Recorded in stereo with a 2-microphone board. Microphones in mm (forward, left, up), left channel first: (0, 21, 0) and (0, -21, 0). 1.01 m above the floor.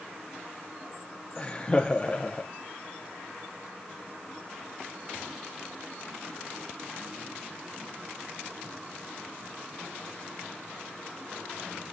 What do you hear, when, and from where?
1.4 s laughter: 20° left (ahead or behind), 0.7 m